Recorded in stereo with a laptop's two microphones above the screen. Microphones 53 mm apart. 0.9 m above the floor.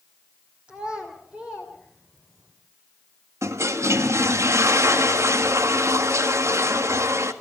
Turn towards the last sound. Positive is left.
turn(degrees=-65)  # may be behind; listen again after turning